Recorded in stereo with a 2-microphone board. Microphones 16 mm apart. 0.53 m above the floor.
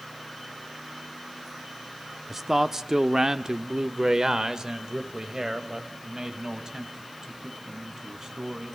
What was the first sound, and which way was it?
A man speaking, 20° right (ahead or behind).